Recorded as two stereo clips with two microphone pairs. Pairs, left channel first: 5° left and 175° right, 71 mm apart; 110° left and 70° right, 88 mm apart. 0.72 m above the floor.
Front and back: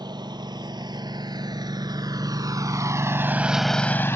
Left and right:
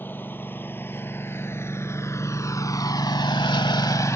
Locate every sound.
0.0 s a lawn mower: 175° left; by 4.2 s 55° left